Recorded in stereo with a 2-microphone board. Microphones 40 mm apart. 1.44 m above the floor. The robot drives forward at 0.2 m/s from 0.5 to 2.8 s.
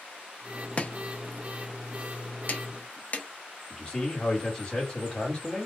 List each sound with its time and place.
0.8 s chopping: 35° left (ahead or behind), 0.5 m; by 3.3 s 40° left (ahead or behind), 0.5 m
3.7 s a man speaking: 25° left (ahead or behind), 1.4 m